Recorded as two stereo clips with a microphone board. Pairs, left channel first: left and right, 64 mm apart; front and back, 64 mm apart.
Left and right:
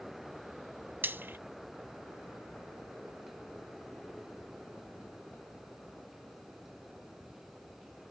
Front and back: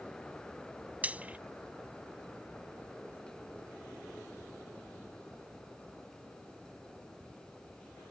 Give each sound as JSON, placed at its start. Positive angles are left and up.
{"t": 1.0, "sound": "frying", "azimuth_deg": -125}